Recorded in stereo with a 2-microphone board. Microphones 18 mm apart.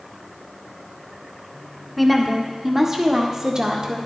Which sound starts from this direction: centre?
A woman speaking, at 2.0 s.